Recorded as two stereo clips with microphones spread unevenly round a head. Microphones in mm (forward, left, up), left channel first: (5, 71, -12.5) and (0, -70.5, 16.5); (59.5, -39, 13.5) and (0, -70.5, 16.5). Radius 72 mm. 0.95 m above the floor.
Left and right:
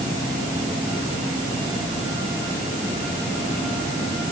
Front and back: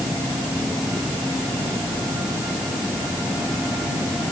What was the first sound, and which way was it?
Only background noise.